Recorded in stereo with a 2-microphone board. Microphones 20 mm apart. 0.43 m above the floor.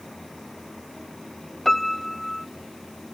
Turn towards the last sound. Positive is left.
turn(degrees=10)  # may be behind; listen again after turning